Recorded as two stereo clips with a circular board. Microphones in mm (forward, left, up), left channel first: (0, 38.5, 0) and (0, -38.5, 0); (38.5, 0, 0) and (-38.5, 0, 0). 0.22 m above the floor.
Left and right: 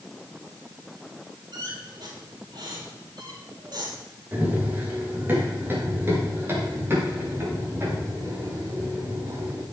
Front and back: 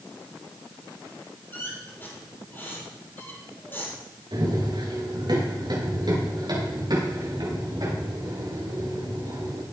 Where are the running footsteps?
155° right, 5 m; by 9.6 s 145° right, 9 m.